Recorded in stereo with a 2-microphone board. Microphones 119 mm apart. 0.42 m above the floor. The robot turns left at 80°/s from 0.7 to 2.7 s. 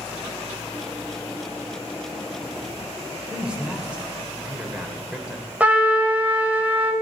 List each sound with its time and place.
3.3 s a man speaking: 10° right (ahead or behind), 1.3 m
5.6 s a trumpet: 15° right (ahead or behind), 1.0 m